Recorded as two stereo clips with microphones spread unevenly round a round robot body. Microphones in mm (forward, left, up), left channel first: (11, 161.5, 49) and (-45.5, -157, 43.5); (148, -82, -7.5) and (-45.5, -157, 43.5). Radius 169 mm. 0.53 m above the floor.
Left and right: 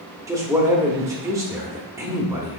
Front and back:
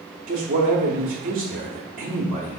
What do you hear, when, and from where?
0.3 s a man speaking: 170° right, 0.9 m